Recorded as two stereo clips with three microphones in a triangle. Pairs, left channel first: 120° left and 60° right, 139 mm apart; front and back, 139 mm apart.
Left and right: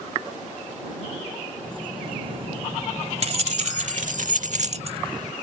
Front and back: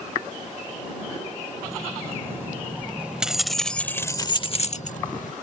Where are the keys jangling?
110° right; by 5.3 s straight ahead.